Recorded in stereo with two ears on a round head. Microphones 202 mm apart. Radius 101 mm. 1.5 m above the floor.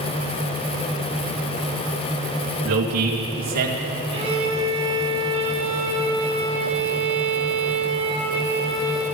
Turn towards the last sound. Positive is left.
turn(degrees=-25)  # may be behind; listen again after turning